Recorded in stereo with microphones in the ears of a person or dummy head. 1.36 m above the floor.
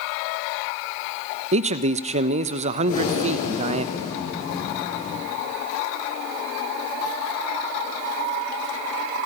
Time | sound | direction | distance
1.5 | a man speaking | 40° right (ahead or behind) | 0.9 m
2.9 | breathing | 50° left (ahead or behind) | 5.5 m